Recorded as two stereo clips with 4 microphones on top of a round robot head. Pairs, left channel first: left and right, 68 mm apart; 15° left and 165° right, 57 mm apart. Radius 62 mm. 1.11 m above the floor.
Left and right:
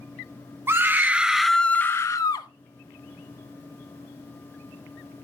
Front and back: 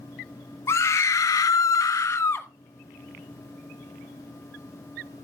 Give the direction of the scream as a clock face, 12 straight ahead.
1 o'clock.